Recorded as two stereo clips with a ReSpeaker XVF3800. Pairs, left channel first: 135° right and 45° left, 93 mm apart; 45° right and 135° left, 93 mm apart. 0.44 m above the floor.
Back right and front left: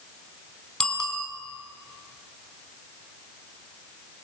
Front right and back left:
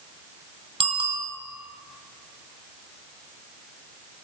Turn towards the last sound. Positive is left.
turn(degrees=145)